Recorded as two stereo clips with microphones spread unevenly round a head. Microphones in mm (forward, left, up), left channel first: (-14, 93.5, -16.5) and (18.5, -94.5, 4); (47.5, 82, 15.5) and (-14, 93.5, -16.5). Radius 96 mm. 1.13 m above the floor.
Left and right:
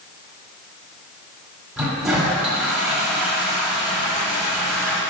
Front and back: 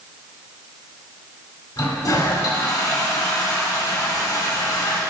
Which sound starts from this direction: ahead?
A toilet flushing, at 1.8 s.